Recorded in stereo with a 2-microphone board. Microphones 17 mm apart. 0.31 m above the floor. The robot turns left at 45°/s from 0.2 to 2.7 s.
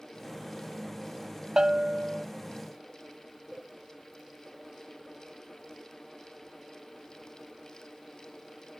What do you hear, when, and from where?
1.6 s a bell: 105° right; by 2.2 s 135° right